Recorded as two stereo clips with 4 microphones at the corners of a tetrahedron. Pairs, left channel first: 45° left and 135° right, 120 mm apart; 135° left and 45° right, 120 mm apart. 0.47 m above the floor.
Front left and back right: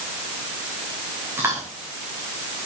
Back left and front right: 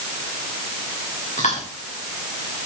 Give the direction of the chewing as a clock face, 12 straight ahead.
7 o'clock.